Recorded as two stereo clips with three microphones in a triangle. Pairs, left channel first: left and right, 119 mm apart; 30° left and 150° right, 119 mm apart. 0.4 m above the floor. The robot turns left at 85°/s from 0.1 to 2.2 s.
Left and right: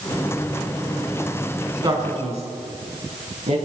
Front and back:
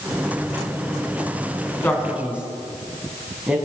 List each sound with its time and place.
1.8 s a man speaking: 40° right, 4 m; by 3.6 s 70° right, 4 m